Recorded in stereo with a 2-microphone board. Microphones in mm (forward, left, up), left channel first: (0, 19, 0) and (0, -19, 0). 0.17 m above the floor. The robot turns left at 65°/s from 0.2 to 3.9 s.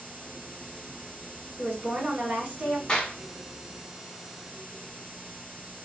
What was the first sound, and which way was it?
A woman speaking, 45° right.